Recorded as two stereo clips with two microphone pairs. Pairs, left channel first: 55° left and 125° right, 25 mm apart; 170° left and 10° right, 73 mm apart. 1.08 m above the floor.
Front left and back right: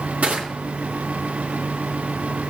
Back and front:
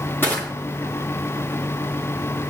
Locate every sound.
0.2 s crushing: 130° right, 3 m